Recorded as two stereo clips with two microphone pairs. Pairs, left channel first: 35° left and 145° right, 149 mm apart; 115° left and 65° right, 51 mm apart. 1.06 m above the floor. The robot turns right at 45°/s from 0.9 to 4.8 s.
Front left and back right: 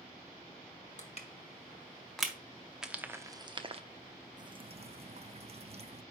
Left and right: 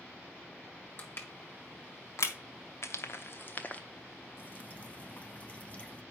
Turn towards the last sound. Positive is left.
turn(degrees=175)